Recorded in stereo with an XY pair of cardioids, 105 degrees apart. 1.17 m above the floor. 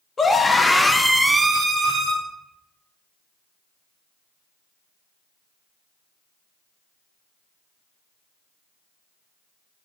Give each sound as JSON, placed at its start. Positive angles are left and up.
{"t": 0.2, "sound": "a scream", "azimuth_deg": 35, "distance_m": 0.9}